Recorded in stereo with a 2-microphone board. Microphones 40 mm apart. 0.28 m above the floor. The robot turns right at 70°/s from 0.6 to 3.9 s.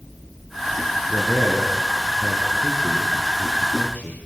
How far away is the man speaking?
About 3.5 m.